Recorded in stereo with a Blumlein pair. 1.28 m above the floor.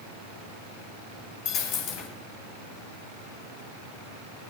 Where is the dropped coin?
40° left, 3 m.